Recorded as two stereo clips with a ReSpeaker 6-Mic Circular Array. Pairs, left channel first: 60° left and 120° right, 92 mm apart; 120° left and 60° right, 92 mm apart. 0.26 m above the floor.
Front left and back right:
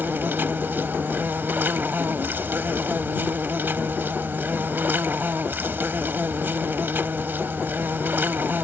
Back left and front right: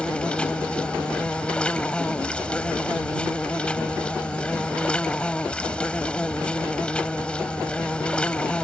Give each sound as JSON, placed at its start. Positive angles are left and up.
{"t": 0.0, "sound": "an insect", "azimuth_deg": -170}